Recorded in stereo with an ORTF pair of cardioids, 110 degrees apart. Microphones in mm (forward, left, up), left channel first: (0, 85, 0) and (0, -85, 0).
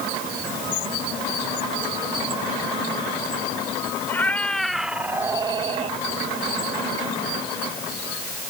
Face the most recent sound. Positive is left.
turn(degrees=-40)